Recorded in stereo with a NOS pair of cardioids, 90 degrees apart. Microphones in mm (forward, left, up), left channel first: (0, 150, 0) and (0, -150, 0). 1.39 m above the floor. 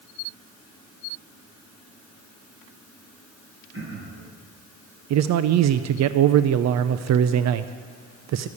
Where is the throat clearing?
40° right, 6 m.